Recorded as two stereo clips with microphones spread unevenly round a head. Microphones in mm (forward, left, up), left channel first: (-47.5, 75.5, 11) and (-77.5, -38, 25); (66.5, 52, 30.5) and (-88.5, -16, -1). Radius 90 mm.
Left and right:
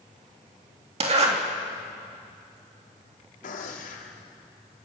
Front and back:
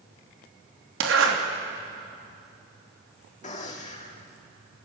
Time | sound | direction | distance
1.0 | a zipper | 135° right | 3 m
3.4 | a gunshot | 70° left | 3.5 m